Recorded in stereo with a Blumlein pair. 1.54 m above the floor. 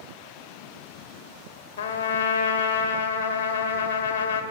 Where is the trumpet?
60° left, 0.6 m.